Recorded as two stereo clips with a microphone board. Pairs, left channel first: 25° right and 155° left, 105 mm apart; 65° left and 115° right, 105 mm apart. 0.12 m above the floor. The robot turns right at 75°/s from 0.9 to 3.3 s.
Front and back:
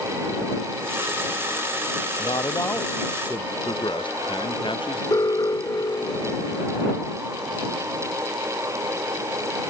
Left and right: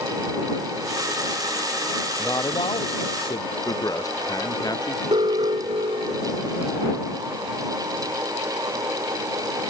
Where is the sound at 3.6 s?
15° left.